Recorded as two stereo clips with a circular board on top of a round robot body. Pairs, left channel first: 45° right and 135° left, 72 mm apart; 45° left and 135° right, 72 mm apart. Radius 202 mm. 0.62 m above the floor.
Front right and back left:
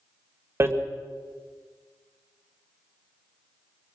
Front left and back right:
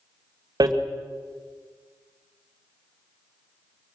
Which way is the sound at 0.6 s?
170° right.